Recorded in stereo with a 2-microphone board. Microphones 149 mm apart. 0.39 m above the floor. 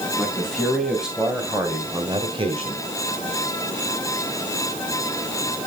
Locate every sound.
0.2 s a man speaking: 5° left (ahead or behind), 3.5 m; by 2.9 s 45° right (ahead or behind), 1.9 m